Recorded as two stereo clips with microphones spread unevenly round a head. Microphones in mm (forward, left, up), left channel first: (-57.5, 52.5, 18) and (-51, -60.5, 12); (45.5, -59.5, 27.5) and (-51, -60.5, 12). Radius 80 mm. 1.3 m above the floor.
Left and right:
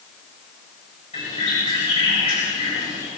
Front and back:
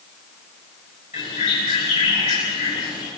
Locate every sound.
1.1 s a bird: 35° left, 9 m